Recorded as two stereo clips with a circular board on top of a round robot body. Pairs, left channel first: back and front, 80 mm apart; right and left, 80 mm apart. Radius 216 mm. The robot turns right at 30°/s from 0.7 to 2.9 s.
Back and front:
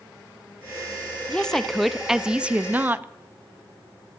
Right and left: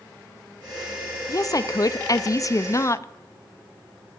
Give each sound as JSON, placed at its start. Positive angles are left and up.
{"t": 1.3, "sound": "a woman speaking", "azimuth_deg": -105, "distance_m": 0.7}